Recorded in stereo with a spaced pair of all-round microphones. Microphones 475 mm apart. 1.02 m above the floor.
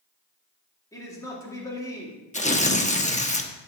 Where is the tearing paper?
15° left (ahead or behind), 0.9 m.